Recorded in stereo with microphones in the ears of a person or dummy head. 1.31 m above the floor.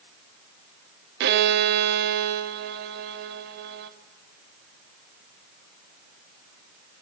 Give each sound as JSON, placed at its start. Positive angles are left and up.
{"t": 1.2, "sound": "a violin", "side_deg": -60, "distance_m": 0.6}